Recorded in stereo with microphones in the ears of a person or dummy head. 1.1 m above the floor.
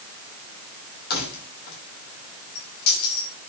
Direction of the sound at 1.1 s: 55° left (ahead or behind).